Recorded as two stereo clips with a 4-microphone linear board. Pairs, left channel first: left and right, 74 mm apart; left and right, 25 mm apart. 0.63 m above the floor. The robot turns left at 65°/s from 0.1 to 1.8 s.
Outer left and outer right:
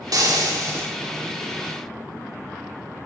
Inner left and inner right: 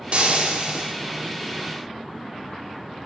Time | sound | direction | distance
0.1 | frying | 80° right | 1.9 m